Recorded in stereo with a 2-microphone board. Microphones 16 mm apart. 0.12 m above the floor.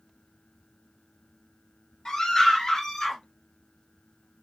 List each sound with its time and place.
2.0 s a scream: 45° left (ahead or behind), 2.5 m; by 3.2 s 40° left (ahead or behind), 1.8 m